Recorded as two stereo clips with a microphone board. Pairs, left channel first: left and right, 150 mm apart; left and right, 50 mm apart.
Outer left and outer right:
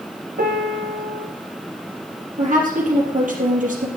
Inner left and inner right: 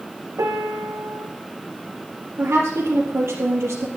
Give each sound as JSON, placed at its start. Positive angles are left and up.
{"t": 0.4, "sound": "a piano", "side_deg": -85, "distance_m": 3.0}
{"t": 2.4, "sound": "a woman speaking", "side_deg": -60, "distance_m": 3.5}